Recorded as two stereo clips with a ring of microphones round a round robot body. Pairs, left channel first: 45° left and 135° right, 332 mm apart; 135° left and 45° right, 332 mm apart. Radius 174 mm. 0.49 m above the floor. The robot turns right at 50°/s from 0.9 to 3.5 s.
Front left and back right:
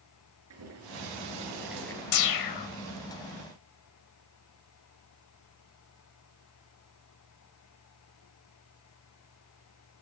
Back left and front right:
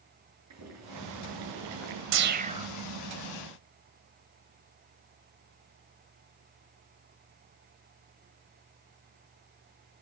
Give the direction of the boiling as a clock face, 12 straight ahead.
3 o'clock.